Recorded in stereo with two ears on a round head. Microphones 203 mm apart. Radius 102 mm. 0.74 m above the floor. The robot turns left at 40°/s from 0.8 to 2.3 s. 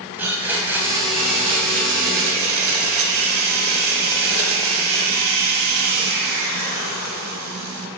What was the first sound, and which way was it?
A blender, 10° right.